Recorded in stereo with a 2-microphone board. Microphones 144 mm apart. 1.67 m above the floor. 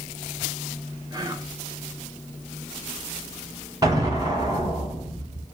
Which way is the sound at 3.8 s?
30° right (ahead or behind).